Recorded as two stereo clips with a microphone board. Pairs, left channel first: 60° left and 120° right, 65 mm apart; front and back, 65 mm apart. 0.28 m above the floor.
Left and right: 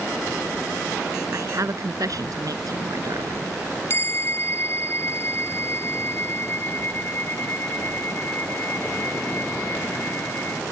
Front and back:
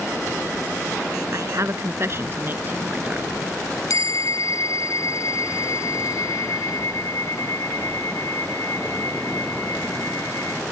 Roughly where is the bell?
Ahead.